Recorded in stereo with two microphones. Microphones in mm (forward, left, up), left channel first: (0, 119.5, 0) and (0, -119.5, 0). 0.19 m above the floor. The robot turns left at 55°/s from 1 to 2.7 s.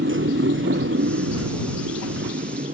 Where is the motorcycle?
55° right; by 2.8 s 150° right.